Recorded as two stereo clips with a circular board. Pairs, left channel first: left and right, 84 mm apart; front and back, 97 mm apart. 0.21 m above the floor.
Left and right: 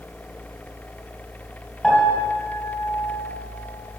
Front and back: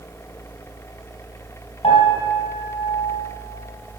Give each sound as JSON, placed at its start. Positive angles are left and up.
{"t": 1.8, "sound": "a piano", "azimuth_deg": 0, "distance_m": 3.0}